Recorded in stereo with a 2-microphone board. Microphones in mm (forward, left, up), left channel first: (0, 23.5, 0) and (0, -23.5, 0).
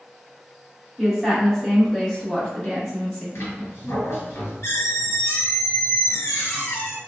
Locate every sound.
1.0 s a woman speaking: 5° right (ahead or behind), 1.3 m; by 3.2 s 15° left (ahead or behind), 1.3 m
3.4 s a squeak: 60° left (ahead or behind), 1.8 m